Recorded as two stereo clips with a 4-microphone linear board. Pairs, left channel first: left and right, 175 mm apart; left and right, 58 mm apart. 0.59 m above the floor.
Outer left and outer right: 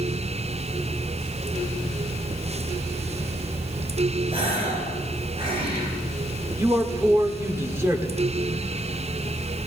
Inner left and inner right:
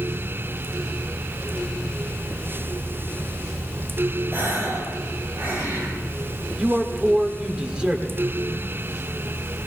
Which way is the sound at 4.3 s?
35° right (ahead or behind).